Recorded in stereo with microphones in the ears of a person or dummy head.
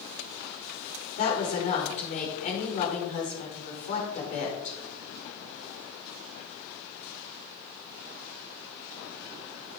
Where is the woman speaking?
45° left (ahead or behind), 5 m.